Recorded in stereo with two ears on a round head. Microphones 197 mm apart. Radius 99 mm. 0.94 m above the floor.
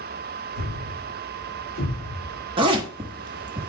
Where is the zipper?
20° right (ahead or behind), 1.3 m.